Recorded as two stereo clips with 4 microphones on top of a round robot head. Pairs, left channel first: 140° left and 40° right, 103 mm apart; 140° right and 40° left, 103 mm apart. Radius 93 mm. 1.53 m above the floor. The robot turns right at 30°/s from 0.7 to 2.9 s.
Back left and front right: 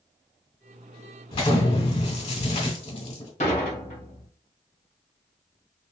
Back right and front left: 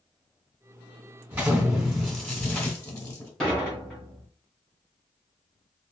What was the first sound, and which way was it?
An explosion, 110° left.